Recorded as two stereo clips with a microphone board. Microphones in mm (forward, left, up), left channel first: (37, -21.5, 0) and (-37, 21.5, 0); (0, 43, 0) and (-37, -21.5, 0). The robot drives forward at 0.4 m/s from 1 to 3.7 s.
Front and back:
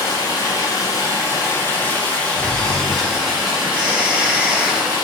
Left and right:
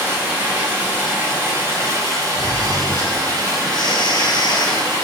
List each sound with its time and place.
0.0 s running water: 65° right, 1.1 m; by 5.0 s 135° right, 1.3 m
2.4 s snoring: 40° left, 1.1 m; by 4.9 s 65° left, 0.8 m